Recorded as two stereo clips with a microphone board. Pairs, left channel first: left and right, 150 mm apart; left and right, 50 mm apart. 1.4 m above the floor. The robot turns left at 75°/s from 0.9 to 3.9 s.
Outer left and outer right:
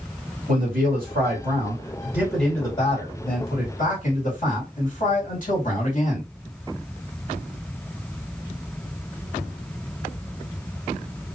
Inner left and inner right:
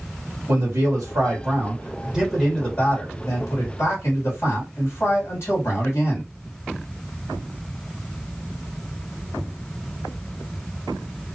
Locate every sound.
0.5 s a man speaking: 70° right, 1.9 m; by 6.3 s 65° left, 1.9 m